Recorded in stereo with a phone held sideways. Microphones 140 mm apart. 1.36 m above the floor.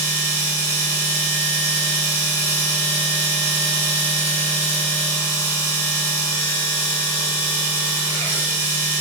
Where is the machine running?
25° left (ahead or behind), 3 m.